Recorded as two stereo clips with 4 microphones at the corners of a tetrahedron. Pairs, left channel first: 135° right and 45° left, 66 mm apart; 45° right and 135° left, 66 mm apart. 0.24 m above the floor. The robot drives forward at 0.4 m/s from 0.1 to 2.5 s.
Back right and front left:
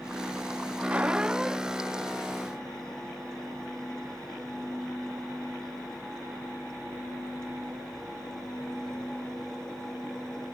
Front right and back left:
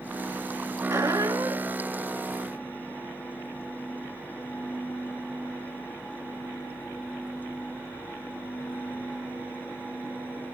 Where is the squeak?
110° left, 0.8 m; by 1.9 s 135° left, 1.0 m.